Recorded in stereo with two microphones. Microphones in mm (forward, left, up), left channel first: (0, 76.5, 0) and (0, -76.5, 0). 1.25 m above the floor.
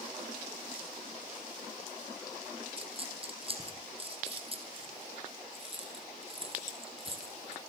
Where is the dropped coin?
40° right (ahead or behind), 3.5 m.